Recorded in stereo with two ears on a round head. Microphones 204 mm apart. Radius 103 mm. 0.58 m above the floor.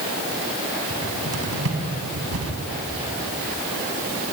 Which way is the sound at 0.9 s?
70° right (ahead or behind).